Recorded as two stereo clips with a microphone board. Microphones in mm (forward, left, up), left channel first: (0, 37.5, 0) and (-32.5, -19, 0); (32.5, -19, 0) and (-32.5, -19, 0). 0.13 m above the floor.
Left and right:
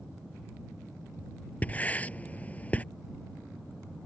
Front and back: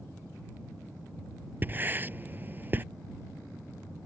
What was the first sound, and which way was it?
Writing, 125° left.